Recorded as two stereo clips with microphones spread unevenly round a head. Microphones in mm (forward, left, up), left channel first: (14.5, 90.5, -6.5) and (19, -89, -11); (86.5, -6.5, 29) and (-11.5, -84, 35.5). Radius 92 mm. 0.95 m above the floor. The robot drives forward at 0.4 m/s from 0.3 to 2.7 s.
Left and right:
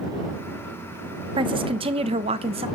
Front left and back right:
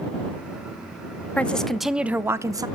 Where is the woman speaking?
35° right, 0.7 m; by 2.7 s 110° right, 0.6 m.